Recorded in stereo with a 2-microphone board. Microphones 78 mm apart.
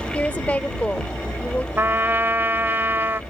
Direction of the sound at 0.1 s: 20° left (ahead or behind).